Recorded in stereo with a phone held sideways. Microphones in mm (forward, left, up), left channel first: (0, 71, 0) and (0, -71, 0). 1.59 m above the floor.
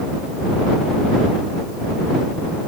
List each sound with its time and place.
Only background noise.